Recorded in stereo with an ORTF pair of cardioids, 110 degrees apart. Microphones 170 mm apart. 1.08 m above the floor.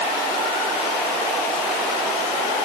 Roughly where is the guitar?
I don't hear a guitar.